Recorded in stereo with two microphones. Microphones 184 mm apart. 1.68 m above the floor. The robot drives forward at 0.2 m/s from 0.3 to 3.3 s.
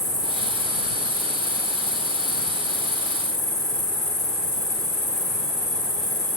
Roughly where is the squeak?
I don't hear a squeak.